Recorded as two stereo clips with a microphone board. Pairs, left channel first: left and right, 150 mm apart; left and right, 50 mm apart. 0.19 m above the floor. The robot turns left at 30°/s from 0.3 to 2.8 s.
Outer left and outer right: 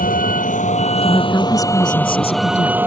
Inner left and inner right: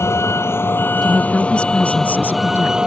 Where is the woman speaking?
170° left; by 2.8 s 120° left.